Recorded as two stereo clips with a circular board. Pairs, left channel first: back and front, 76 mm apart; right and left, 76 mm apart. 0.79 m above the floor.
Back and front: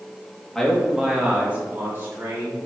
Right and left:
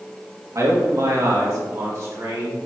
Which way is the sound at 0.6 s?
95° left.